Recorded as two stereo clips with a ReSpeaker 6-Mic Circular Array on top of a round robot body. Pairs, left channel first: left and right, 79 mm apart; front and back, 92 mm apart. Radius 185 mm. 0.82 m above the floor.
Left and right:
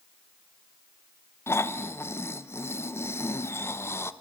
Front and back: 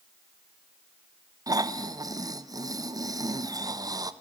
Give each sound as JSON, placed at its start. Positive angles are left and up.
{"t": 1.5, "sound": "snoring", "azimuth_deg": 140, "distance_m": 1.3}